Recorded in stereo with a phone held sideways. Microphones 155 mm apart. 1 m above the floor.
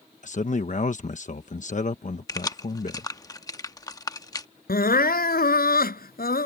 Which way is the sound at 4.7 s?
75° left (ahead or behind).